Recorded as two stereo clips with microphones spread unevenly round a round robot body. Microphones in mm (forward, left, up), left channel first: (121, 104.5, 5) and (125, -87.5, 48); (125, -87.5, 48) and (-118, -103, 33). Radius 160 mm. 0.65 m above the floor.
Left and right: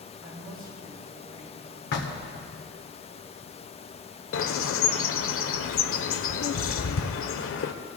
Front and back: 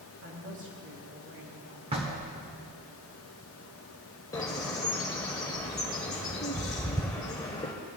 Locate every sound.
0.2 s a woman speaking: 140° right, 4 m
1.9 s knocking: 115° left, 1.0 m
4.3 s a bird: 80° left, 0.6 m